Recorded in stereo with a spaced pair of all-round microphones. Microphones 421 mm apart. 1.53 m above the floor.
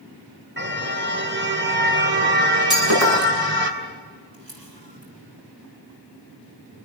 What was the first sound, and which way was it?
A car horn, 25° right (ahead or behind).